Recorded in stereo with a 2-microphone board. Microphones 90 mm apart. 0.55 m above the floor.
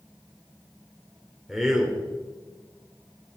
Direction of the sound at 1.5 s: 5° right (ahead or behind).